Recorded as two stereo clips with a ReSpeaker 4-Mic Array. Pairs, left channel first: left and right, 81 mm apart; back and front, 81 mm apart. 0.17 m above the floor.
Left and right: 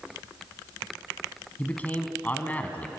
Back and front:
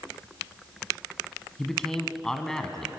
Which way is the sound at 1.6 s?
105° left.